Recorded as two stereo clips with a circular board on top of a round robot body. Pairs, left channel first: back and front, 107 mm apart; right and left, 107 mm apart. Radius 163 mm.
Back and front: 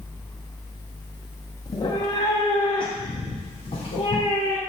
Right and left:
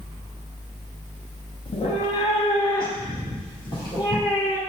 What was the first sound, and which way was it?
A cat meowing, 125° right.